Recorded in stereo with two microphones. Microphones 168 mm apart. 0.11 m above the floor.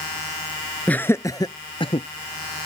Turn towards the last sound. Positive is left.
turn(degrees=35)  # may be behind; listen again after turning